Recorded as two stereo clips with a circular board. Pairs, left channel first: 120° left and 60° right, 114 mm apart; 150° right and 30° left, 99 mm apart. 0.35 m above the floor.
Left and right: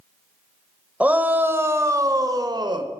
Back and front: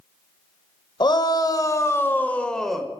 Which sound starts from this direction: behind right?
A shout, at 1.0 s.